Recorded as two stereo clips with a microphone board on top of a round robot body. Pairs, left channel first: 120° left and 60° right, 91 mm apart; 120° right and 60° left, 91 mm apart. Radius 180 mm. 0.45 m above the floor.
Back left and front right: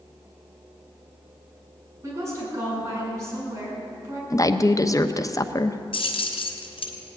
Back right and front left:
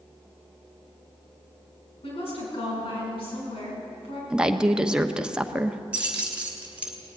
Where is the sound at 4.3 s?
135° left, 1.1 m.